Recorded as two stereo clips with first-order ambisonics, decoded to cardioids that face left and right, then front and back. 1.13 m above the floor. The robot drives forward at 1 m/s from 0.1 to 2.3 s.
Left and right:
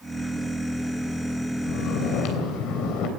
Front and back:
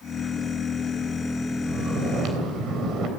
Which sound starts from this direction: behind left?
Snoring, at 1.7 s.